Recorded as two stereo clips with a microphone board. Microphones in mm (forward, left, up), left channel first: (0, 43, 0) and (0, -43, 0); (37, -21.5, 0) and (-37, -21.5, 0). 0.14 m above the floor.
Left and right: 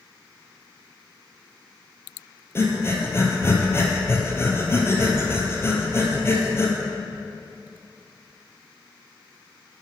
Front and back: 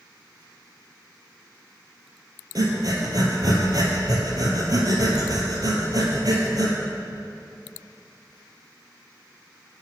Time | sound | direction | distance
2.5 | breathing | 150° left | 1.5 m